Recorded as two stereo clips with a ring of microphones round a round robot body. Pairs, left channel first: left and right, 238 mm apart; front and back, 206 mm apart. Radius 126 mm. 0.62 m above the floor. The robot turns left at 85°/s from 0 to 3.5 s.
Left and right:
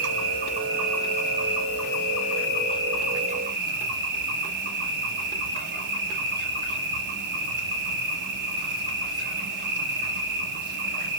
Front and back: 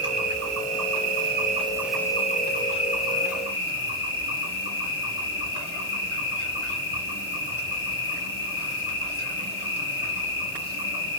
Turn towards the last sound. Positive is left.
turn(degrees=-45)